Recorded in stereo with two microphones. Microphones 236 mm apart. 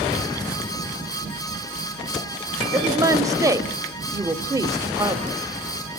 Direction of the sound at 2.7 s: 15° right (ahead or behind).